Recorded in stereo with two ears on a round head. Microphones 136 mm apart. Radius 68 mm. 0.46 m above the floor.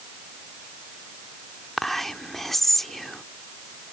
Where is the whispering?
Centre (ahead or behind).